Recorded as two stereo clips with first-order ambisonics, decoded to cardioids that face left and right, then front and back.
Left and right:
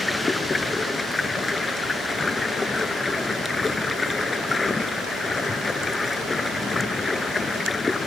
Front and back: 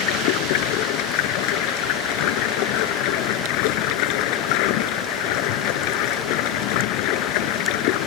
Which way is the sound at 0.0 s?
10° left.